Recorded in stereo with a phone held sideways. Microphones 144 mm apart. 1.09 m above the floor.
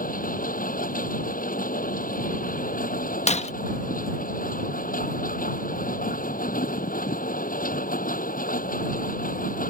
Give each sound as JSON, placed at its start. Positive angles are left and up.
{"t": 0.0, "sound": "a machine running", "side_deg": 75}
{"t": 3.3, "sound": "breaking glass", "side_deg": 50}